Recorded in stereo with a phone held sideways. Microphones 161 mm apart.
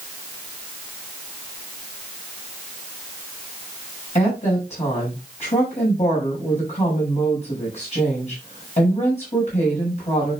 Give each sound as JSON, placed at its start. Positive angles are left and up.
{"t": 4.2, "sound": "a woman speaking", "side_deg": 45, "distance_m": 7.0}